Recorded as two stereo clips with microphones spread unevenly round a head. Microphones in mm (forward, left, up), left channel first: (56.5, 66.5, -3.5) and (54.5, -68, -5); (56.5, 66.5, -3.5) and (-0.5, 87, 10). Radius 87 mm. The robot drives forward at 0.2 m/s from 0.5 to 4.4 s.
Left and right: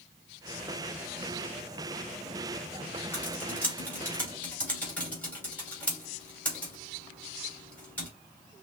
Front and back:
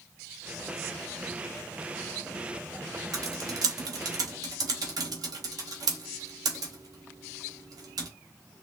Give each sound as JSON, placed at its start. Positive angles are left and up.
{"t": 3.1, "sound": "typing on a keyboard", "azimuth_deg": 165, "distance_m": 1.1}